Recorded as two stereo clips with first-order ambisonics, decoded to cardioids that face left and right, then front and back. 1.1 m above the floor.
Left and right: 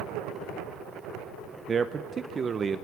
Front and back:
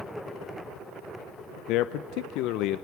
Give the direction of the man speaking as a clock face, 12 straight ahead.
1 o'clock.